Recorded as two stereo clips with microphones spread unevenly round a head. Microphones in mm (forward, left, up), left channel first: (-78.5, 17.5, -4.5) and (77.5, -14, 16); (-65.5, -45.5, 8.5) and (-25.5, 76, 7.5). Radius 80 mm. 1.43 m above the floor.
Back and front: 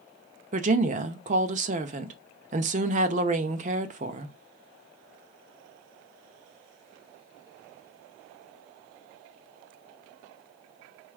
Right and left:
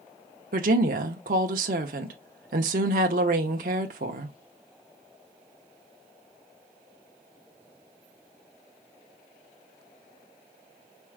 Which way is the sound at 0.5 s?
40° left.